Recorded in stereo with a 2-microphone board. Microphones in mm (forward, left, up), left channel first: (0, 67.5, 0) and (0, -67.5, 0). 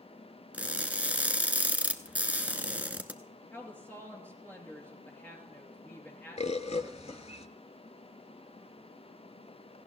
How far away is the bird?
About 0.6 m.